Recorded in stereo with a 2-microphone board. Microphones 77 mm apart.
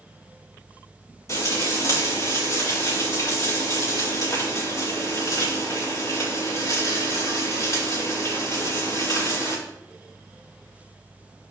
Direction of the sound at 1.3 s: 45° left (ahead or behind).